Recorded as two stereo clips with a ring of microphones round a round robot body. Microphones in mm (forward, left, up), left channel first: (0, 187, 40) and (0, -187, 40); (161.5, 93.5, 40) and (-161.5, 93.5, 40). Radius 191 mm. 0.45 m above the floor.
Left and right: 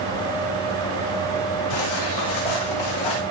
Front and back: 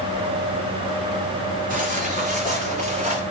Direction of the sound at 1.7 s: 115° left.